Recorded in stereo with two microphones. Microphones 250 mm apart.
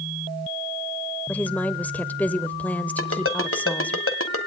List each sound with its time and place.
1.3 s a woman speaking: 5° left (ahead or behind), 0.8 m
3.0 s a ringtone: 60° left (ahead or behind), 1.5 m